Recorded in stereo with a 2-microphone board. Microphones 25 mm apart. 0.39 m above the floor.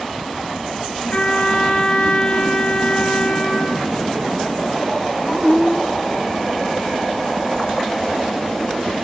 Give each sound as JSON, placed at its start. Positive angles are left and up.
{"t": 1.1, "sound": "a trumpet", "side_deg": 55, "distance_m": 3.5}